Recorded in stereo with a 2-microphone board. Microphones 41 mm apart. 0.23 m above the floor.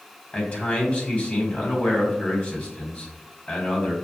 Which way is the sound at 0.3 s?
35° left (ahead or behind).